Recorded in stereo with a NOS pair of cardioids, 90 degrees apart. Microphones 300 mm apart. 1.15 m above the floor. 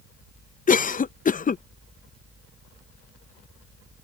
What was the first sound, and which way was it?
A cough, 25° left.